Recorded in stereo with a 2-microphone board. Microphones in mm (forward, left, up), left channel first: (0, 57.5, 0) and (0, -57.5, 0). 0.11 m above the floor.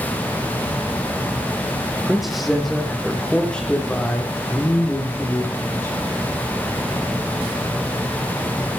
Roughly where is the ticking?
No ticking in this recording.